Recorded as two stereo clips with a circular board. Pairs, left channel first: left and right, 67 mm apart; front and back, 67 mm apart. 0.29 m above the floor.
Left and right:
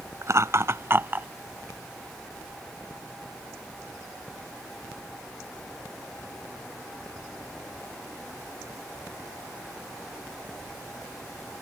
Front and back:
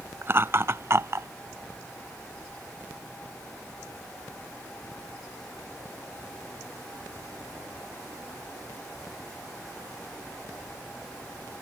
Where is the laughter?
130° right; by 1.3 s 145° right.